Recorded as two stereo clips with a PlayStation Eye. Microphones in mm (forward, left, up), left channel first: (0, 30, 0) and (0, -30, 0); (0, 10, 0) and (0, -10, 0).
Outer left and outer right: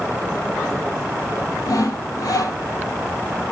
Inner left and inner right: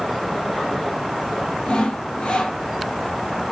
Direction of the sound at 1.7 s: 80° left.